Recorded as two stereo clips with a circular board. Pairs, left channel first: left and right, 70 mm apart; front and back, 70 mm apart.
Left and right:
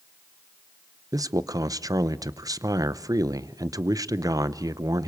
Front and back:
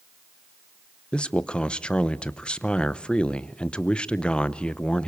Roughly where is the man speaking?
Right.